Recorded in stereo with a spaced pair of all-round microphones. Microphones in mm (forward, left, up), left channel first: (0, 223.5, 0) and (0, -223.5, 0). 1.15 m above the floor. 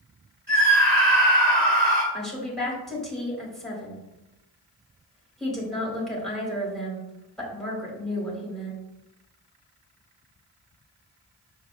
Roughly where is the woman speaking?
Centre.